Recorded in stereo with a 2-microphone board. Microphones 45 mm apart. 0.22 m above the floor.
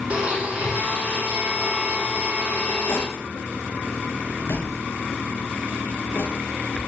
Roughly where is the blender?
Right.